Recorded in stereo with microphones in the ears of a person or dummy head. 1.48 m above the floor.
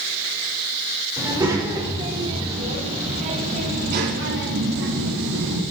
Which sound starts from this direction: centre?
A child speaking, at 1.2 s.